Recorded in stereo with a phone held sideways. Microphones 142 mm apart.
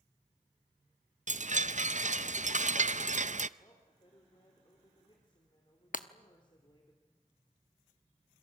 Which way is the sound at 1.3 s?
60° right (ahead or behind).